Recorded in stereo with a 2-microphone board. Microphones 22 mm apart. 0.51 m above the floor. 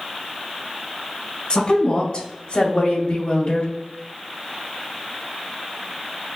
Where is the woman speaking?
45° left (ahead or behind), 1.9 m; by 3.7 s 70° left (ahead or behind), 2.5 m.